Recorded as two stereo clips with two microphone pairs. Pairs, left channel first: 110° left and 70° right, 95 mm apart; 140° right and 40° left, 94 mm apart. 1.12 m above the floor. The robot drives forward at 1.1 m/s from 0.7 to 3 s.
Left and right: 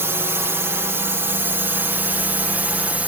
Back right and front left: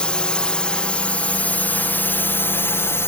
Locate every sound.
0.0 s a drone: 75° right; by 3.1 s 125° right